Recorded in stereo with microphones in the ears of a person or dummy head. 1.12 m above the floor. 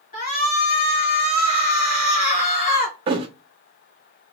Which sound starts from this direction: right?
A thud, at 3.1 s.